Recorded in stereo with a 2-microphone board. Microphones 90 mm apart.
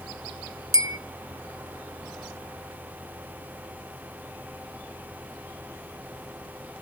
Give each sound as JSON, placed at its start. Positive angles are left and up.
{"t": 0.7, "sound": "a bell", "side_deg": -35, "distance_m": 0.7}